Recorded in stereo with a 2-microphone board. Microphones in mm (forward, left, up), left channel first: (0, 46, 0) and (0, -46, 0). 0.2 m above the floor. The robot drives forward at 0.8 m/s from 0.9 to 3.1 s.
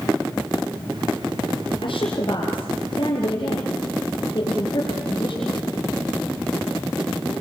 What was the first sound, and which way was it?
A woman speaking, 60° left (ahead or behind).